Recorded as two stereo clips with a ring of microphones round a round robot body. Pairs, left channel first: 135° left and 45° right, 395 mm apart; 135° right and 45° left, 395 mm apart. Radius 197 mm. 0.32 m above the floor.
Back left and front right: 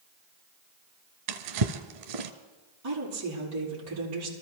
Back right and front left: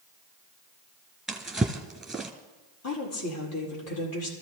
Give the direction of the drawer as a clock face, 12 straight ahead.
1 o'clock.